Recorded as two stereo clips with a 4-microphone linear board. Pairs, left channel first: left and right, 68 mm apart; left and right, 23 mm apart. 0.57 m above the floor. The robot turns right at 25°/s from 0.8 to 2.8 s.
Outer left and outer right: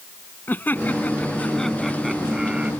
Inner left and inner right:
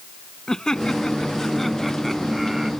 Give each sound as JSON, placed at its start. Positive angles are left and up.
{"t": 0.5, "sound": "laughter", "azimuth_deg": 150}